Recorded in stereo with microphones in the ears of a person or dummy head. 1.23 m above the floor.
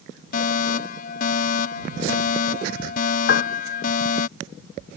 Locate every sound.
0.3 s a fire alarm: 55° left (ahead or behind)
3.3 s a piano: 60° left (ahead or behind)